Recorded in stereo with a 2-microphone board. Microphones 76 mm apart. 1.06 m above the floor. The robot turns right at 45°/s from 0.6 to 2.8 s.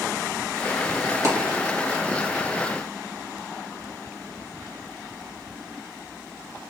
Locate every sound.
1.2 s a dropped coin: 40° right (ahead or behind), 2 m; by 1.6 s 55° right (ahead or behind), 2 m